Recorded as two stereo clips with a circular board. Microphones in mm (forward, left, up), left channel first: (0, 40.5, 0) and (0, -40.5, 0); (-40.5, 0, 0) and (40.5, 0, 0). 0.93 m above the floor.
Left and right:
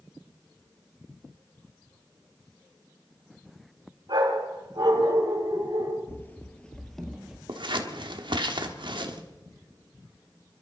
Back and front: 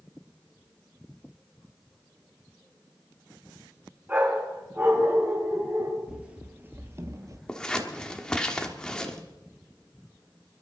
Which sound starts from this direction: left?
Running footsteps, at 6.1 s.